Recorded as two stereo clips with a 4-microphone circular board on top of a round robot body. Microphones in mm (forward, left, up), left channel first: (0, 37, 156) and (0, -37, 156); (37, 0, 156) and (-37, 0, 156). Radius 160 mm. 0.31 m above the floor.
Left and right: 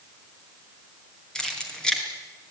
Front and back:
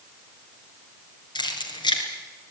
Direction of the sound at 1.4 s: 10° left.